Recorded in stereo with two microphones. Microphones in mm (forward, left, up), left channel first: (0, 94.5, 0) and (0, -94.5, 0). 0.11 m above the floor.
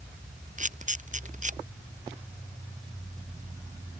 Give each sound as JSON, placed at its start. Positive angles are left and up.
{"t": 0.6, "sound": "a camera shutter", "side_deg": -40}